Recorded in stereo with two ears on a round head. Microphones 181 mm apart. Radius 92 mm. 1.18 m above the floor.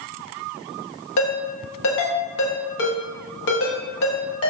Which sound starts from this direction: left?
A ringtone, at 1.2 s.